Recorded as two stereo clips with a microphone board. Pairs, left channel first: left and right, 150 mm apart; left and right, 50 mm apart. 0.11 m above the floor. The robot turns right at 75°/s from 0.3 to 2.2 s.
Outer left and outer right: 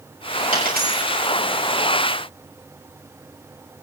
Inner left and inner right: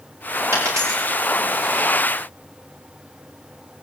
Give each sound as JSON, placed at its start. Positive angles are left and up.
{"t": 0.5, "sound": "a dropped coin", "side_deg": -65, "distance_m": 7.0}